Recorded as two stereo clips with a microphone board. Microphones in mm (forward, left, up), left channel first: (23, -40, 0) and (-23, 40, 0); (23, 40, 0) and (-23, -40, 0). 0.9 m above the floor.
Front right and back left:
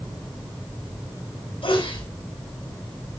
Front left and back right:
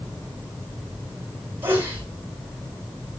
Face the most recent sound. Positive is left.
turn(degrees=-55)